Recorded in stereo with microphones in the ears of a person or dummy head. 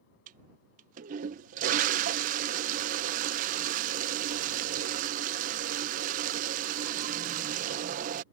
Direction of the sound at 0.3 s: 40° right (ahead or behind).